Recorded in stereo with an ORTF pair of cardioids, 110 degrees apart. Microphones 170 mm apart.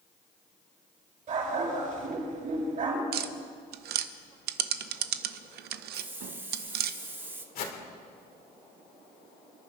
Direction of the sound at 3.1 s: 70° right.